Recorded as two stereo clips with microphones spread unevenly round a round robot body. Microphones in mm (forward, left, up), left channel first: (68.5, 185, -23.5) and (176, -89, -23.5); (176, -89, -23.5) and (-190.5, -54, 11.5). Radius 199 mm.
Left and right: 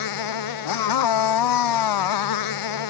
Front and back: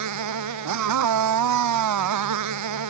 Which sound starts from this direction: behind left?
A motorcycle, at 0.0 s.